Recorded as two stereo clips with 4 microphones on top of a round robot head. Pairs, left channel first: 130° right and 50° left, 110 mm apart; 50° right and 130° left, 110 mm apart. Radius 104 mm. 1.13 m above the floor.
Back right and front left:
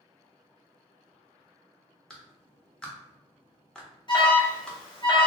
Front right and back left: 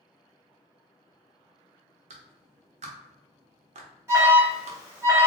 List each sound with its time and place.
2.1 s a clap: 145° left, 0.7 m
4.1 s an alarm: 165° right, 1.7 m